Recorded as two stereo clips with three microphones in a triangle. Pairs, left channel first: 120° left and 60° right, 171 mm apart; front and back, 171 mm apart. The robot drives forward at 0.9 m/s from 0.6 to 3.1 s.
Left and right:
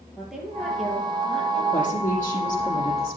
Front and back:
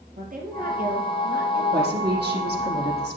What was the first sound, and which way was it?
A woman speaking, 150° right.